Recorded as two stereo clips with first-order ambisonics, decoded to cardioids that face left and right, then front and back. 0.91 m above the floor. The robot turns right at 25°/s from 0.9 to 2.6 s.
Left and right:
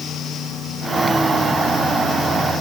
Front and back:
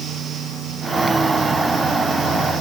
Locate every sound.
Only background noise.